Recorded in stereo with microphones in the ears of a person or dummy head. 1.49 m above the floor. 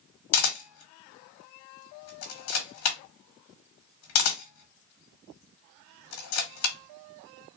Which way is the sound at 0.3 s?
75° left (ahead or behind).